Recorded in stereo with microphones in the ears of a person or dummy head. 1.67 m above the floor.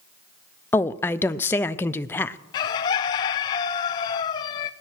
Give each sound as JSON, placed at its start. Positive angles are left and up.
{"t": 0.7, "sound": "a woman speaking", "side_deg": 10, "distance_m": 0.6}
{"t": 2.5, "sound": "a bird", "side_deg": 20, "distance_m": 0.6}